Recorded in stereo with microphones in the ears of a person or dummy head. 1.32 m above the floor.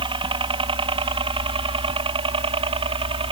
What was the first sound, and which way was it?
A helicopter, 25° right (ahead or behind).